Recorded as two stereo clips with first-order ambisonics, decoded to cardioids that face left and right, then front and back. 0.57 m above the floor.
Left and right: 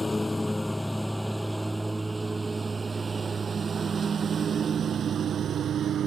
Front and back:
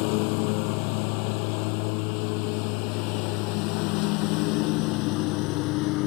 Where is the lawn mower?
10° left; by 6.1 s 30° right.